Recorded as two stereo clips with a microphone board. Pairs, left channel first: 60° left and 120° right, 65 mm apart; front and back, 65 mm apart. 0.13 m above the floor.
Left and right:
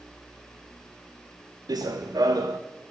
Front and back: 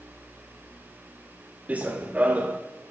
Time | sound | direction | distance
1.7 | running footsteps | 110° right | 1.1 m